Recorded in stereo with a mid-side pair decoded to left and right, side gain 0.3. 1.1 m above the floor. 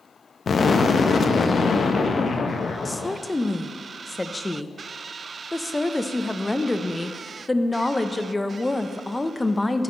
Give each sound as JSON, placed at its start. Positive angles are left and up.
{"t": 0.5, "sound": "an explosion", "azimuth_deg": 60, "distance_m": 0.7}
{"t": 2.9, "sound": "a woman speaking", "azimuth_deg": 20, "distance_m": 0.6}